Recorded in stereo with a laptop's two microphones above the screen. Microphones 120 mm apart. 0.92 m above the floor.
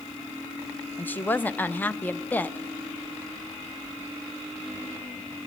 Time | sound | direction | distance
1.0 | a woman speaking | 15° left (ahead or behind) | 0.5 m